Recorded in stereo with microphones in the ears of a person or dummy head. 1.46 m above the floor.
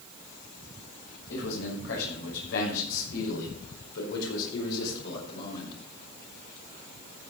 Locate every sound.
1.3 s a man speaking: 70° left (ahead or behind), 5.5 m; by 5.7 s 60° left (ahead or behind), 4 m